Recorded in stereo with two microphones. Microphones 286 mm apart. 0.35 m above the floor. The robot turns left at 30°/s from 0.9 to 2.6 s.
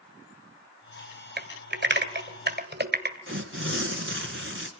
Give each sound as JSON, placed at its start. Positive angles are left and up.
{"t": 1.4, "sound": "typing on a keyboard", "side_deg": -35, "distance_m": 1.8}
{"t": 3.3, "sound": "tearing paper", "side_deg": -45, "distance_m": 2.5}